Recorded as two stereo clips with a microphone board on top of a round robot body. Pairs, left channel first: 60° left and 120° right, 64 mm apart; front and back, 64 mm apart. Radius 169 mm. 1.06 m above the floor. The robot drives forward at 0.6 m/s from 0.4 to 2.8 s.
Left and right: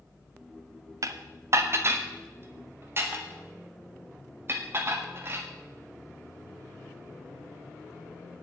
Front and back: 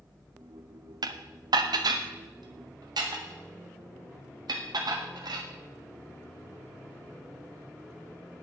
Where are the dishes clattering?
160° right, 0.5 m; by 5.5 s 175° right, 1.6 m.